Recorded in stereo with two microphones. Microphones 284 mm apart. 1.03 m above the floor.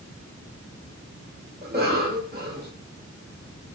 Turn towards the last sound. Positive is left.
turn(degrees=-35)  # may be behind; listen again after turning